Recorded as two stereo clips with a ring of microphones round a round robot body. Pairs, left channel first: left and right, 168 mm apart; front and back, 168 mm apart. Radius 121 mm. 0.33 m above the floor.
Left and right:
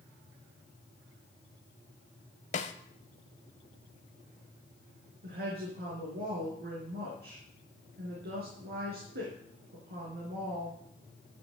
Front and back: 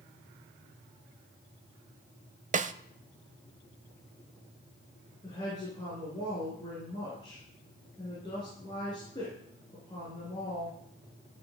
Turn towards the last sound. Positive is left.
turn(degrees=-70)